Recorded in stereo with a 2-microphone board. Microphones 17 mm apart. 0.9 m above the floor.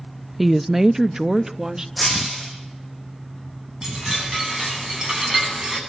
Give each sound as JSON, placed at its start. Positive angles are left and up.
{"t": 0.4, "sound": "a woman speaking", "side_deg": -5, "distance_m": 0.5}
{"t": 2.0, "sound": "breaking glass", "side_deg": 0, "distance_m": 8.5}
{"t": 3.8, "sound": "a chime", "side_deg": -35, "distance_m": 9.5}